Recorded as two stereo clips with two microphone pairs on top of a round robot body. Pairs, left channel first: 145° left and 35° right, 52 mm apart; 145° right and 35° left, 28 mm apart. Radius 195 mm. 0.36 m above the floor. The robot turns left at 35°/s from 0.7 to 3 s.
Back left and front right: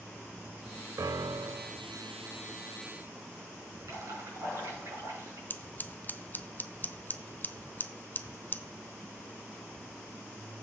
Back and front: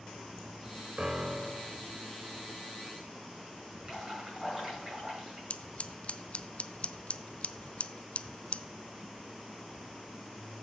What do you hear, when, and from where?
1.0 s a piano: 30° right, 0.5 m; by 1.8 s 60° right, 0.5 m
3.8 s dripping: 30° right, 5 m
5.5 s scissors: 170° right, 0.6 m